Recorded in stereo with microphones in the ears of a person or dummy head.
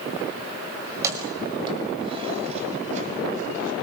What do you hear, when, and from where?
0.9 s keys jangling: 15° right (ahead or behind), 5 m; by 3.7 s 50° right (ahead or behind), 6 m